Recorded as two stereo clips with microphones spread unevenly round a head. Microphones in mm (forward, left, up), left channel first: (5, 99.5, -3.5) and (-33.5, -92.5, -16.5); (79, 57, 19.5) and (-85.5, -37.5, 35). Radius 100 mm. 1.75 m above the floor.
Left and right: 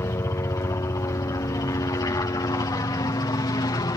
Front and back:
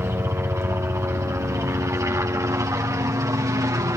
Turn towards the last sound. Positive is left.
turn(degrees=140)